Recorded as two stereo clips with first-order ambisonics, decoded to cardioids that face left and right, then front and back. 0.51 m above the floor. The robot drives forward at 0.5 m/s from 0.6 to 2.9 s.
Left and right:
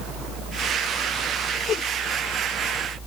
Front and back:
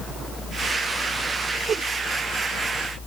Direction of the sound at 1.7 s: 125° left.